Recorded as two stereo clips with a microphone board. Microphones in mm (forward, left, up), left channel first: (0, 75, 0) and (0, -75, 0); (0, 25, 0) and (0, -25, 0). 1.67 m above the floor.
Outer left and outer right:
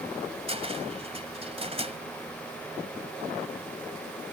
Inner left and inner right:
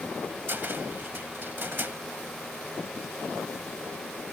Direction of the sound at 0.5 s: 40° right (ahead or behind).